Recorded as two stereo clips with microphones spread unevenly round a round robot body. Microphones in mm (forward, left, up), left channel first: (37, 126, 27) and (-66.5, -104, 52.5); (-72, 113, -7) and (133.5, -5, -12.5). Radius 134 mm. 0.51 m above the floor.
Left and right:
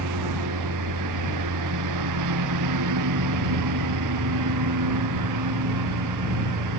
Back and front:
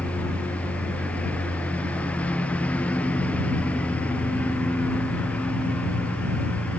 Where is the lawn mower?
125° right.